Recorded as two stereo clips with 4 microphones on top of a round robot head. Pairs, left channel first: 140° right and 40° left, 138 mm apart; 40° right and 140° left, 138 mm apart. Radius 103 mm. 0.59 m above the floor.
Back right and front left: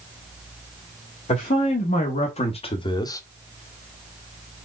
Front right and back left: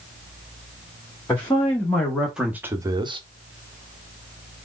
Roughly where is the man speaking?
Behind right.